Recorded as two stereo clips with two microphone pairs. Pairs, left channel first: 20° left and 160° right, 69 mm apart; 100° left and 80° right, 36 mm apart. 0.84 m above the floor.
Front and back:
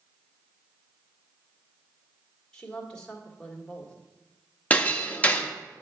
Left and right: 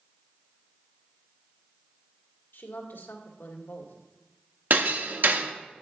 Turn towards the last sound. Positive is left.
turn(degrees=-50)